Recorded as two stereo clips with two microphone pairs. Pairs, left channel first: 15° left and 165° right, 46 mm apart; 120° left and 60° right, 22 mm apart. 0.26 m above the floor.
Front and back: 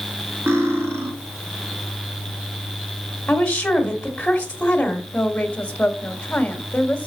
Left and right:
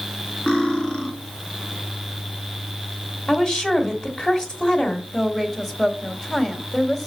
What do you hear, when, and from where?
0.5 s cutlery clinking: 170° left, 2.5 m
3.3 s a woman speaking: 80° left, 1.7 m
5.1 s a woman speaking: 50° left, 1.1 m